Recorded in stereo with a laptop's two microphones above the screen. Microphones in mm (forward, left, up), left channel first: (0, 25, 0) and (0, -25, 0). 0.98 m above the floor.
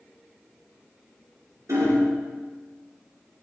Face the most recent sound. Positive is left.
turn(degrees=-80)